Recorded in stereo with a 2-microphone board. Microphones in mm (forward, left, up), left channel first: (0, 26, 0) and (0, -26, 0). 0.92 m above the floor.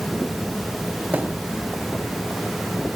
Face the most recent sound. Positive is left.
turn(degrees=-35)  # may be behind; listen again after turning